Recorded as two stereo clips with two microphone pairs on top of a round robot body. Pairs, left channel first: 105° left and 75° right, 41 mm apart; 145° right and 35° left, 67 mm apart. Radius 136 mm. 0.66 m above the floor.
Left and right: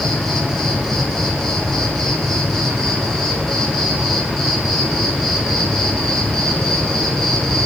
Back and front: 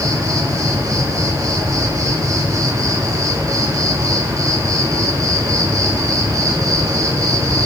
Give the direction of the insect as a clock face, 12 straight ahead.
11 o'clock.